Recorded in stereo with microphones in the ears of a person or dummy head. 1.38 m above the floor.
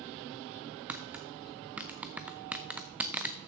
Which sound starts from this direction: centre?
Tapping, at 0.9 s.